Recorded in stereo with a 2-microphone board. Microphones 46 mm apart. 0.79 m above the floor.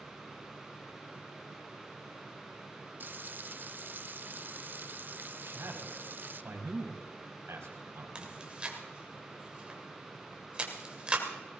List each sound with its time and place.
3.0 s frying: 45° right (ahead or behind), 0.6 m
5.4 s a man speaking: 75° right (ahead or behind), 4 m
8.2 s chewing: 20° right (ahead or behind), 2.5 m